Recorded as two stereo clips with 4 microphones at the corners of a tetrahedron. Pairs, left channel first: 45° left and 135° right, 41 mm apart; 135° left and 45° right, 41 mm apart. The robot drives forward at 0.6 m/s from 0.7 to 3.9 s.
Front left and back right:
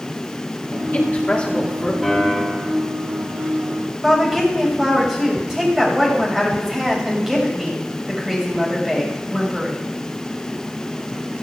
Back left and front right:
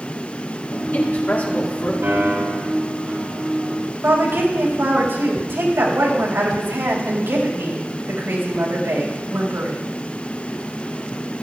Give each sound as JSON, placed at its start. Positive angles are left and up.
{"t": 0.7, "sound": "a man speaking", "azimuth_deg": 85, "distance_m": 2.0}
{"t": 2.0, "sound": "a piano", "azimuth_deg": -45, "distance_m": 5.0}
{"t": 4.0, "sound": "a woman speaking", "azimuth_deg": -60, "distance_m": 5.5}